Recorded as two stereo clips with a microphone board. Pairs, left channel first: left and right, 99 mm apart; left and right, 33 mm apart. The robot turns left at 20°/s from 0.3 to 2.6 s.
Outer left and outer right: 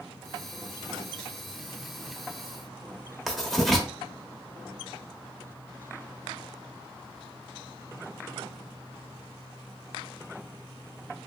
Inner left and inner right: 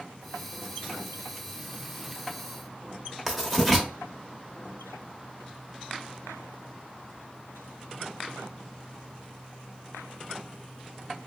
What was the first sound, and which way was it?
Writing, centre (ahead or behind).